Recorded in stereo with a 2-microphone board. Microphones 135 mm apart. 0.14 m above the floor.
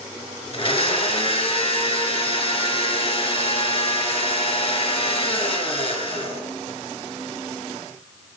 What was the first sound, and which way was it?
A blender, 45° left (ahead or behind).